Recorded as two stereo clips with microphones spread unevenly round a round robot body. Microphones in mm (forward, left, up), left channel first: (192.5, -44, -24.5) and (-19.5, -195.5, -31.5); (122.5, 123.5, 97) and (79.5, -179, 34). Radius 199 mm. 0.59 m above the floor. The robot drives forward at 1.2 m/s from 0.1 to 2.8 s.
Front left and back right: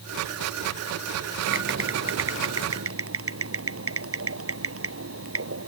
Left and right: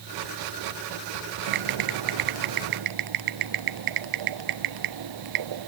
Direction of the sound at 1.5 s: 105° right.